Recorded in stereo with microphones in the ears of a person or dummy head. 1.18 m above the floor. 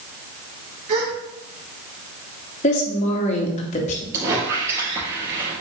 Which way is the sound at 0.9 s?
35° right (ahead or behind).